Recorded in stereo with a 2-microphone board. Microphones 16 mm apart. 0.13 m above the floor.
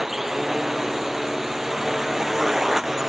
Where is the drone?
15° right (ahead or behind).